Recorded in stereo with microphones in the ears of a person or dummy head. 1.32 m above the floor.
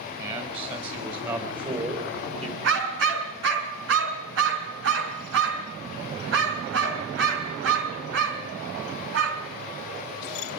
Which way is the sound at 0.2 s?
30° right (ahead or behind).